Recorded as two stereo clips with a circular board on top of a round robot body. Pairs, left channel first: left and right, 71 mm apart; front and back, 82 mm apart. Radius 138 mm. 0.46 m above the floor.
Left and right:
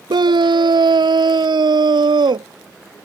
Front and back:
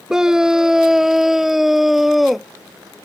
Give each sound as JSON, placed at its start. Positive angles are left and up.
{"t": 0.1, "sound": "a scream", "azimuth_deg": -100}